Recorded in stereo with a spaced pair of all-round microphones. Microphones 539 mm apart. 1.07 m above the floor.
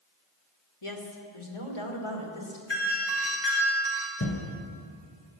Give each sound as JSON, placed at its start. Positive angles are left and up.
{"t": 0.8, "sound": "a woman speaking", "side_deg": 65, "distance_m": 2.0}
{"t": 2.7, "sound": "a doorbell", "side_deg": 50, "distance_m": 4.0}
{"t": 4.2, "sound": "a thud", "side_deg": 25, "distance_m": 2.5}